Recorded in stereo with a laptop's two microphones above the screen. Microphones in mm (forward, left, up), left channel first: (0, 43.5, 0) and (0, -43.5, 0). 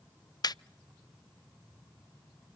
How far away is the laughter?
About 0.5 m.